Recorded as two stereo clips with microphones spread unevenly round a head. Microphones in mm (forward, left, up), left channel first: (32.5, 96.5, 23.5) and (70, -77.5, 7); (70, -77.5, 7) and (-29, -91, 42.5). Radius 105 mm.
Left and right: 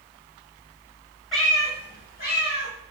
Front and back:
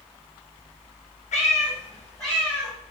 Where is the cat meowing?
20° left, 1.2 m; by 2.7 s 130° left, 1.9 m.